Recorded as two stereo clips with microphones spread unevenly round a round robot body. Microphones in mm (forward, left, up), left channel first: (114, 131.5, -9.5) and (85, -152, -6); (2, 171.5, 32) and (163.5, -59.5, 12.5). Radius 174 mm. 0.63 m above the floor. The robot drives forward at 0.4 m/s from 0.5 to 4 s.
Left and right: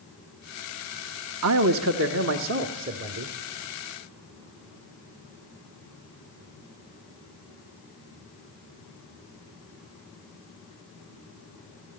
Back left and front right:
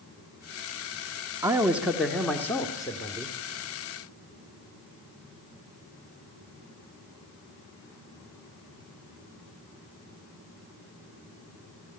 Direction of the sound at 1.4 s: 130° right.